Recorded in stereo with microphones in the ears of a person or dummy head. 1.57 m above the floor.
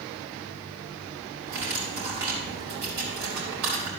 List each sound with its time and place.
1.5 s cutlery clinking: 75° right (ahead or behind), 4.5 m